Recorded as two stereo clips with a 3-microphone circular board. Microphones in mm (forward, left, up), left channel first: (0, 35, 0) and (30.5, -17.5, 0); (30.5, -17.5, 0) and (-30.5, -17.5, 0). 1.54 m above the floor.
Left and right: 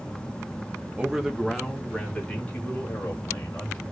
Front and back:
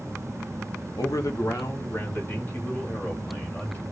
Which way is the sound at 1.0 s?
10° left.